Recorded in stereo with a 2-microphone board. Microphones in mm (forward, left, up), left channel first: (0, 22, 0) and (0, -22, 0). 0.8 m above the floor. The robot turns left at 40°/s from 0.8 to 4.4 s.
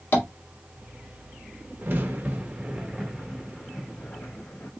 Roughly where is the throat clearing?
No throat clearing in this recording.